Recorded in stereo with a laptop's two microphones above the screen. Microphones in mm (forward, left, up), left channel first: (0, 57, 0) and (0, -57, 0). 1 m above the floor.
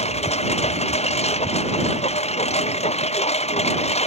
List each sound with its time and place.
0.0 s a lawn mower: 70° left (ahead or behind)